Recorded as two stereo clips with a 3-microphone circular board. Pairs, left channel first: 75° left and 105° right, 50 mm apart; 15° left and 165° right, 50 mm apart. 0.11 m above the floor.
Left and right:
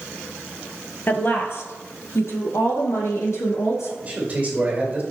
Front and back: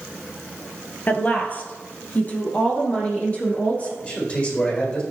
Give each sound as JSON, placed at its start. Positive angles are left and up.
{"t": 1.1, "sound": "a woman speaking", "azimuth_deg": 55, "distance_m": 1.8}
{"t": 4.0, "sound": "a man speaking", "azimuth_deg": -40, "distance_m": 4.5}